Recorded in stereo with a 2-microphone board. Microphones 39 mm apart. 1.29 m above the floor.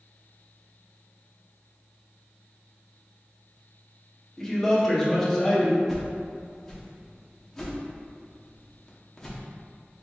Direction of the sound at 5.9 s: 5° left (ahead or behind).